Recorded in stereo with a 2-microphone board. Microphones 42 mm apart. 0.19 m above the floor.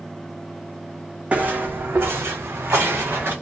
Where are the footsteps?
35° right (ahead or behind), 0.6 m; by 3.3 s 60° right (ahead or behind), 1.2 m.